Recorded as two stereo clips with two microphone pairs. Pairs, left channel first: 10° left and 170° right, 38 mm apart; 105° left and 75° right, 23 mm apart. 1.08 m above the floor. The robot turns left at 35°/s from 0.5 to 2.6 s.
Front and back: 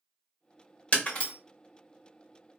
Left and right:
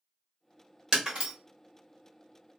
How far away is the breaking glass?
About 1.1 m.